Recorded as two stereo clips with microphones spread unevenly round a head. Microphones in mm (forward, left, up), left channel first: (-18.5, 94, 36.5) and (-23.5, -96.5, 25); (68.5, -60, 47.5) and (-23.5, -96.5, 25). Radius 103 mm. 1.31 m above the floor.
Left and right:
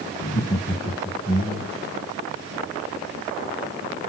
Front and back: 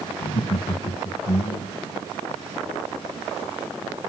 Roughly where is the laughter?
Ahead left.